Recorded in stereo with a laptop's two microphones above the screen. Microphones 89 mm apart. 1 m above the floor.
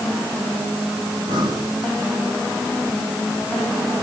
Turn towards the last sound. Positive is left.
turn(degrees=-45)  # may be behind; listen again after turning